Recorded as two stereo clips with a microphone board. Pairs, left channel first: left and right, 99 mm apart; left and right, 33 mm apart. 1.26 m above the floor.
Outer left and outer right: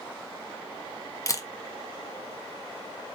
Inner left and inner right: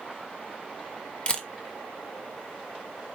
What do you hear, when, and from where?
1.3 s a camera shutter: 35° left (ahead or behind), 1.1 m